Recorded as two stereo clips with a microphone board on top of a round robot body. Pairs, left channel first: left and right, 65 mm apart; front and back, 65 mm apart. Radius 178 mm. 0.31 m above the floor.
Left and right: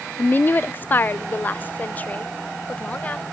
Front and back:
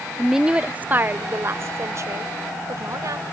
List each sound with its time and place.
0.2 s a woman speaking: 95° left; by 3.2 s 155° left